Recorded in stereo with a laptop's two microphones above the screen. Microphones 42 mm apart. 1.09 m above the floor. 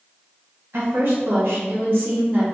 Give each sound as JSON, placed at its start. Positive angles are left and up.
{"t": 0.7, "sound": "a woman speaking", "side_deg": -65, "distance_m": 0.9}